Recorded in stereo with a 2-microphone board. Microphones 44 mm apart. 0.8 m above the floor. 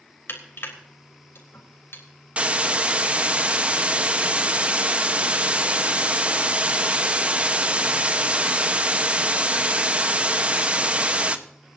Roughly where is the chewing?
No chewing in this recording.